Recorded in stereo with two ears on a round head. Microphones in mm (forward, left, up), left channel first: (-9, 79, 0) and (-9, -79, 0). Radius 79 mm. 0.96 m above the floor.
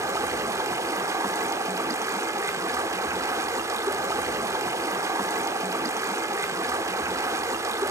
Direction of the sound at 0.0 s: 15° right (ahead or behind).